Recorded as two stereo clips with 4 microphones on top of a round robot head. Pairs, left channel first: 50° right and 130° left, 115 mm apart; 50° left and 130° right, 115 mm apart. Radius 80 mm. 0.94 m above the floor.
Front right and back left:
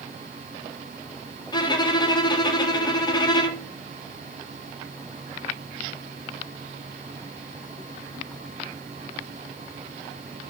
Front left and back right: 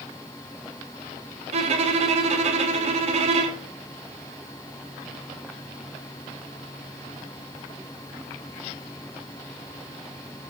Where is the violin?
100° right, 1.3 m.